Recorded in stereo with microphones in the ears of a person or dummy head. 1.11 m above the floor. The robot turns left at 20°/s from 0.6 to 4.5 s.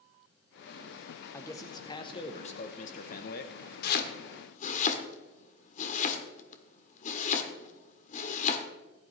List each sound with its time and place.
1.3 s a man speaking: 170° left, 0.9 m; by 3.6 s 125° left, 0.9 m
3.8 s chopping: 60° left (ahead or behind), 1.6 m; by 8.6 s 45° left (ahead or behind), 1.6 m